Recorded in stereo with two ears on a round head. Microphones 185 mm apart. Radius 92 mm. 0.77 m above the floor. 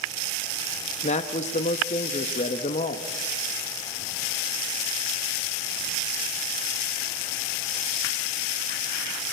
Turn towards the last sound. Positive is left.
turn(degrees=35)  # may be behind; listen again after turning